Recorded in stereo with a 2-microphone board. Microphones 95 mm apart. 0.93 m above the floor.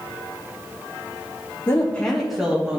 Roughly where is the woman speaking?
Left.